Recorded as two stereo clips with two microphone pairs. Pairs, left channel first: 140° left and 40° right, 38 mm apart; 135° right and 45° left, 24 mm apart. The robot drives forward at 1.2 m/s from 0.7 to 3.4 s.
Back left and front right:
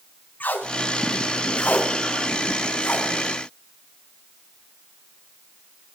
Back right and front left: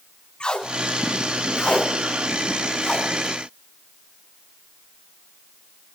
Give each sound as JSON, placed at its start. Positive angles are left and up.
{"t": 0.4, "sound": "tape being pulled", "azimuth_deg": 180, "distance_m": 6.5}